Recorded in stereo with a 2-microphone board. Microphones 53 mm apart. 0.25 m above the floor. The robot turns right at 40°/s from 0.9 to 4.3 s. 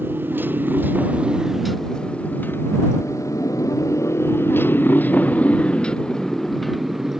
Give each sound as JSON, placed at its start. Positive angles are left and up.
{"t": 0.0, "sound": "a motorcycle", "side_deg": -40}